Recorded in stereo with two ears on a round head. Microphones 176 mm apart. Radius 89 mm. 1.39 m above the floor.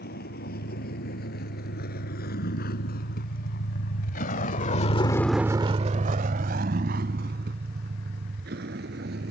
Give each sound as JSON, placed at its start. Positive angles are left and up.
{"t": 0.0, "sound": "a vehicle", "side_deg": 55}